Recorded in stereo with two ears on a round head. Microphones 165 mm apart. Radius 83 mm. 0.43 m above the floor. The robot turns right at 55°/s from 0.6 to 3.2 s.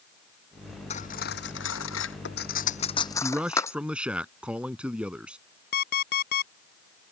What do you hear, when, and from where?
0.9 s cutlery clinking: 35° left (ahead or behind); by 3.8 s 15° left (ahead or behind)
3.2 s a man speaking: 5° right (ahead or behind)
5.7 s an alarm clock: 55° left (ahead or behind)